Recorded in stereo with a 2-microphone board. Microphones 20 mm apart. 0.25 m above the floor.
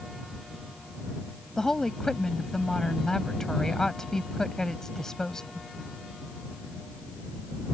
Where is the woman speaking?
30° left (ahead or behind).